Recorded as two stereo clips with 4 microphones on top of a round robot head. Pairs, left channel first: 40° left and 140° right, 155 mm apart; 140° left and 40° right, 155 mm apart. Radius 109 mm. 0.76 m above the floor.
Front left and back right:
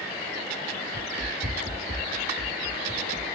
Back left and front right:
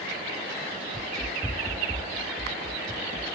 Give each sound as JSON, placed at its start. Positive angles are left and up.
{"t": 0.9, "sound": "running footsteps", "azimuth_deg": -150, "distance_m": 1.0}